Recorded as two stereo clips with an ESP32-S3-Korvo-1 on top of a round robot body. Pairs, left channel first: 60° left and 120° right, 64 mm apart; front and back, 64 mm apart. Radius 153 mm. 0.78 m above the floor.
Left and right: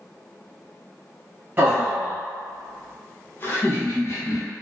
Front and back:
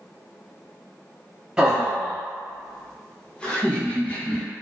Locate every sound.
1.6 s laughter: 120° right, 1.0 m; by 4.4 s 60° left, 1.4 m